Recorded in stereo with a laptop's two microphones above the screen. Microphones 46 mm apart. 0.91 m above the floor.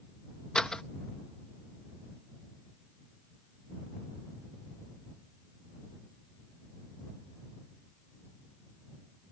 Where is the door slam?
15° left (ahead or behind).